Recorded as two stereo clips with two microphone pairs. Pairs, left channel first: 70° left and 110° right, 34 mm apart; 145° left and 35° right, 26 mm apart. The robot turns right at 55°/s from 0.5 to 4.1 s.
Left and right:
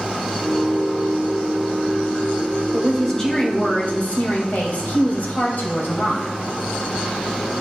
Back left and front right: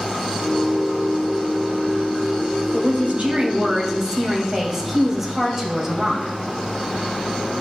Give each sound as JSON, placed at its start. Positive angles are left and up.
{"t": 2.7, "sound": "a woman speaking", "azimuth_deg": -30, "distance_m": 2.5}